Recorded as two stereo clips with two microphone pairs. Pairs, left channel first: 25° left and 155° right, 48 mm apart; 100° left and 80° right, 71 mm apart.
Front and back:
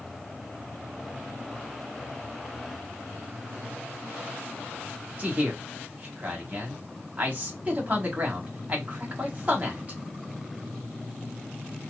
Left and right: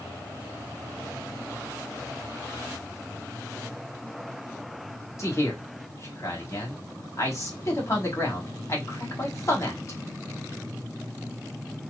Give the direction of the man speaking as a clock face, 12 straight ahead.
7 o'clock.